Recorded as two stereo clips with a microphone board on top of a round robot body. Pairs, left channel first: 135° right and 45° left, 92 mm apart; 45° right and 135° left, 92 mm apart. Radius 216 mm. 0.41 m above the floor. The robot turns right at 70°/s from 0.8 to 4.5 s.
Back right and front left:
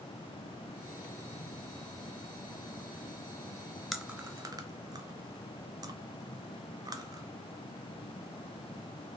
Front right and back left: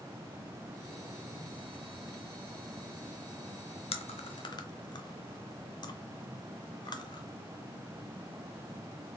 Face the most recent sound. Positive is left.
turn(degrees=-5)